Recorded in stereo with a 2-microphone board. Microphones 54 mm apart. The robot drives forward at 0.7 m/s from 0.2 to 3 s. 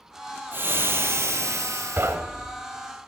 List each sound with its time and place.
0.5 s frying: 45° right (ahead or behind), 1.6 m; by 2.2 s 85° right, 1.1 m
2.0 s knocking: 50° right (ahead or behind), 0.9 m